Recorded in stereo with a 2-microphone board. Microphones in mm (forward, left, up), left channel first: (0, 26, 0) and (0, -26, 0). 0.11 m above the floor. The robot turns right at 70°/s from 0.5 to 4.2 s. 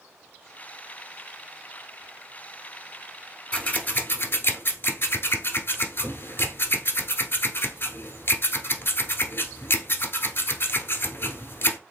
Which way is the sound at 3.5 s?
25° left (ahead or behind).